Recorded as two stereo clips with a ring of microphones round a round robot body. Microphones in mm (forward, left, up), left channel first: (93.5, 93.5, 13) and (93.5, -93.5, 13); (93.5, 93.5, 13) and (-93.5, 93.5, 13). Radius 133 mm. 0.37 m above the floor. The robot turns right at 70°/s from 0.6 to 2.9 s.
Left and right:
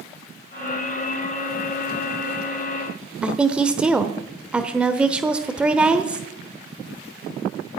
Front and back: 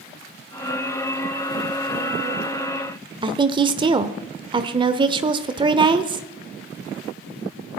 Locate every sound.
3.2 s a woman speaking: 165° right, 0.9 m